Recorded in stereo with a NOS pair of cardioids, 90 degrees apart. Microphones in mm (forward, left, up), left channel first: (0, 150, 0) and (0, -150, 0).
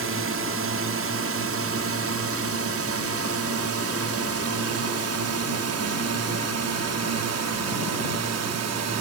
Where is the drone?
50° right; by 9.0 s 65° right.